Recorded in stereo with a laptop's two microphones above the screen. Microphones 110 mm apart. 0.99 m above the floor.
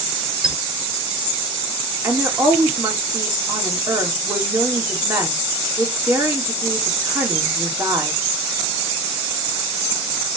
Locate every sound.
0.4 s a squeak: 5° right (ahead or behind), 0.9 m
2.0 s a woman speaking: 20° right (ahead or behind), 3 m